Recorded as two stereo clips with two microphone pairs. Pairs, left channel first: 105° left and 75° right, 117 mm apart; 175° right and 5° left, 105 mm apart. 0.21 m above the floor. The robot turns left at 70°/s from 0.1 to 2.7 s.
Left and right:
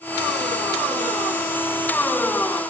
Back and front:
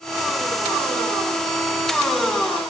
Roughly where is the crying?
No crying in this recording.